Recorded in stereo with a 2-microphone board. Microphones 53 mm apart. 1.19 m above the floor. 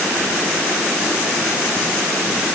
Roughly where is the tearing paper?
I don't hear tearing paper.